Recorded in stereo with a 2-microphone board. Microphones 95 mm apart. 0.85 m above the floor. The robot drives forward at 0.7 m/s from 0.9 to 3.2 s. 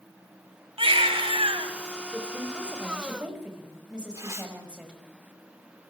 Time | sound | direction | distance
0.8 | a baby crying | 75° right (ahead or behind) | 1.9 m
2.1 | a woman speaking | 10° right (ahead or behind) | 5 m
4.1 | tearing paper | 30° right (ahead or behind) | 3 m